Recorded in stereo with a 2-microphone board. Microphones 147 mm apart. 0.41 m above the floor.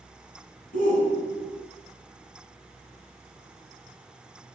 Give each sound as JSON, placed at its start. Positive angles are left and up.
{"t": 0.7, "sound": "a shout", "side_deg": 65, "distance_m": 5.5}